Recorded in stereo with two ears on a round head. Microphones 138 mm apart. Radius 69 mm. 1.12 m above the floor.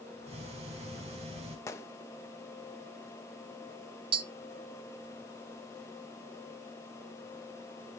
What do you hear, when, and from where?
0.3 s ticking: 40° right (ahead or behind), 4 m
1.7 s a gunshot: 20° left (ahead or behind), 1.1 m
4.1 s tapping: 35° right (ahead or behind), 0.6 m